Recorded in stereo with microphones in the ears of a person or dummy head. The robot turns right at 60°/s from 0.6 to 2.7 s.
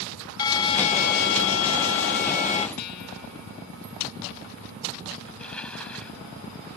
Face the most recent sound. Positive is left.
turn(degrees=5)  # may be behind; listen again after turning